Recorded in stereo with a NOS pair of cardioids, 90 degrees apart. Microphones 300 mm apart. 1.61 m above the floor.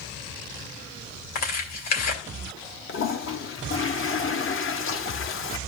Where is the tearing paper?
60° left, 3 m.